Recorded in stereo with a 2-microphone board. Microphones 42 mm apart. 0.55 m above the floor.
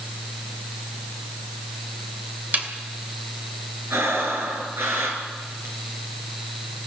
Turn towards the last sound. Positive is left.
turn(degrees=-70)  # may be behind; listen again after turning